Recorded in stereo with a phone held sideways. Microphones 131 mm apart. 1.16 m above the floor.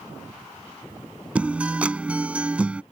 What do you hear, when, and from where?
1.4 s a guitar: 10° right (ahead or behind)